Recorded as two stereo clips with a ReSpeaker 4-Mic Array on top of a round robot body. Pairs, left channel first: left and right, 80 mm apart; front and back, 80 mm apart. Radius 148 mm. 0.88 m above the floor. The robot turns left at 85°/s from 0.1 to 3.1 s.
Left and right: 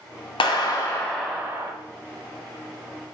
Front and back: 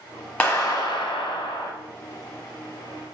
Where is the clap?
75° left, 0.7 m; by 1.7 s 40° right, 0.7 m.